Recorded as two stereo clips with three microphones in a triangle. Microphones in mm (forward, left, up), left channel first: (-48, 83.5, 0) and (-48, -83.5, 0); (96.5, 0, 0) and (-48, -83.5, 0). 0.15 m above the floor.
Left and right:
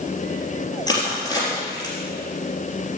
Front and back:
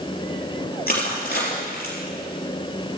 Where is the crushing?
25° left, 3.5 m.